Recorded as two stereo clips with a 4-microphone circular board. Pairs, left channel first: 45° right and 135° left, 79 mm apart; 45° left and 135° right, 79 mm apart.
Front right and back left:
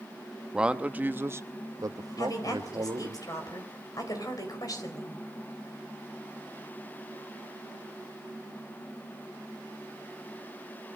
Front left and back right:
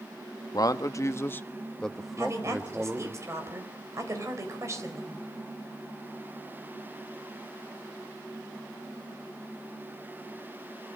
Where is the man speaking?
60° left, 1.1 m; by 3.2 s 160° left, 1.5 m.